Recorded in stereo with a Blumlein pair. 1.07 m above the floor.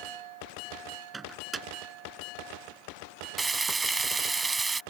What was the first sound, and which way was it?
A microwave, 15° right.